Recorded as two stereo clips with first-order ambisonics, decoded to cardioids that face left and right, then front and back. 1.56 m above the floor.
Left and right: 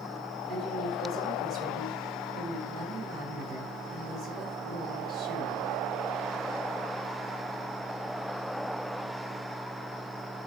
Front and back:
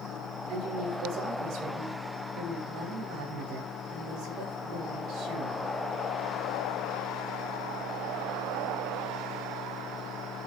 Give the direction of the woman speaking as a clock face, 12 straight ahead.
5 o'clock.